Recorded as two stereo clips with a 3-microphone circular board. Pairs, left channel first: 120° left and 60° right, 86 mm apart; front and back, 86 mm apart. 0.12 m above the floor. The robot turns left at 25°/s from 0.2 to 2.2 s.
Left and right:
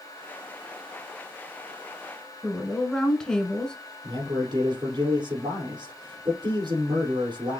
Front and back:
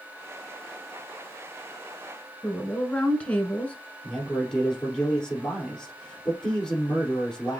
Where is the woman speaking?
50° left, 1.2 m.